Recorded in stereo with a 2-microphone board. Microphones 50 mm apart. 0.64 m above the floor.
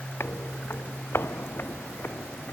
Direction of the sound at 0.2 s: 60° left (ahead or behind).